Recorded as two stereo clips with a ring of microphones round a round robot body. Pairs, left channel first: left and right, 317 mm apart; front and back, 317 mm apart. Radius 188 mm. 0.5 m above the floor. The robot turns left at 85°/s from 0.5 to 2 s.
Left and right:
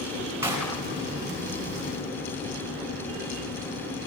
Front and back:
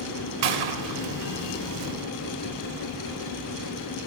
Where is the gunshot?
175° right, 4.5 m; by 1.0 s 145° left, 4.5 m.